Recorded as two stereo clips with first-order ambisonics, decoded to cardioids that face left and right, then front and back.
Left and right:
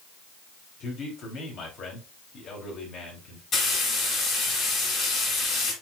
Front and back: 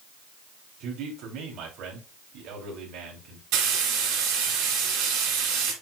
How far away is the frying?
About 4 m.